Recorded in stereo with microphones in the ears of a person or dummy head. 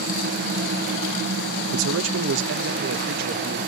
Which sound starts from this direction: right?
A man speaking, at 1.7 s.